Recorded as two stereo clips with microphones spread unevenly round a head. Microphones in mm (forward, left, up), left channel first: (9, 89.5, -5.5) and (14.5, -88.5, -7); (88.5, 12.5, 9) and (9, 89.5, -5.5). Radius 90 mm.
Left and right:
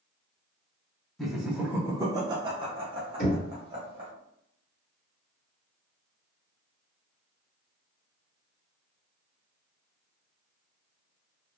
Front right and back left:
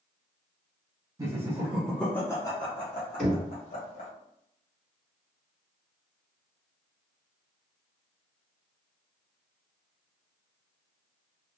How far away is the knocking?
About 1.6 m.